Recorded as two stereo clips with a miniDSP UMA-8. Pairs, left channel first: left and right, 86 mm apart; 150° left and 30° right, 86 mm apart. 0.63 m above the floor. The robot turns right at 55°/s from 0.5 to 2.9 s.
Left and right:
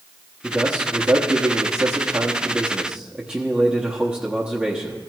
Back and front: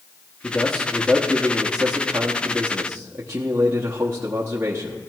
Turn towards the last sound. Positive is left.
turn(degrees=-25)